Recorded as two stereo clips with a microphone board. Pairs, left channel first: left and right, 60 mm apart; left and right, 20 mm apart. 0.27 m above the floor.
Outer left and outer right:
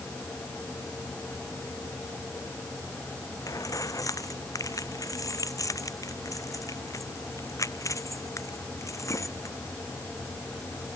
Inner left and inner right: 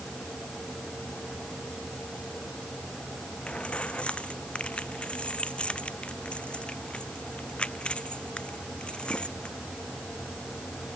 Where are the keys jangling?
75° left (ahead or behind); by 9.6 s 60° left (ahead or behind).